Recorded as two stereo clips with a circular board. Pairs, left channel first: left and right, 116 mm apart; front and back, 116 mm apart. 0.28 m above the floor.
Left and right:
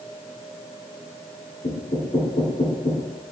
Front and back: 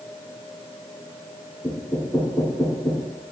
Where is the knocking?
75° left, 3 m.